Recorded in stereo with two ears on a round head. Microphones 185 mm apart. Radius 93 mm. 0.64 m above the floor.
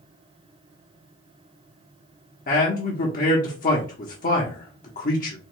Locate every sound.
2.5 s a man speaking: 40° left (ahead or behind), 0.8 m